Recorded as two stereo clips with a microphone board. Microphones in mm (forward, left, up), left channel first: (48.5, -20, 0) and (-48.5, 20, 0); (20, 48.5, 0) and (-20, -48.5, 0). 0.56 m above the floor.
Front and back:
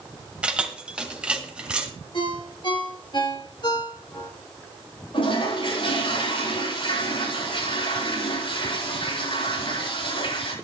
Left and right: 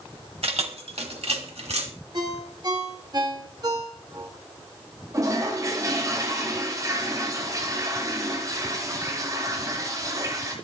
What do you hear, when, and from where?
0.4 s keys jangling: 120° right, 1.8 m
2.1 s a ringtone: 65° right, 4 m
5.1 s a toilet flushing: 55° right, 9 m